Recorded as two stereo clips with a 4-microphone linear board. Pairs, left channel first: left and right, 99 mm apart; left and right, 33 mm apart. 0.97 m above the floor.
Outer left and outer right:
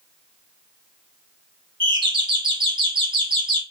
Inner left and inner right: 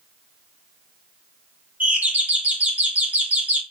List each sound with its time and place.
1.8 s a doorbell: 55° right (ahead or behind), 1.6 m